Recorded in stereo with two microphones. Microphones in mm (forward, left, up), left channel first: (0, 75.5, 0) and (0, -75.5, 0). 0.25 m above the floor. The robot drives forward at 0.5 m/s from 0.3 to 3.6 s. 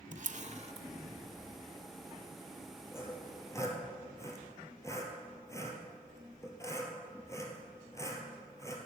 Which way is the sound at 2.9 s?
15° left (ahead or behind).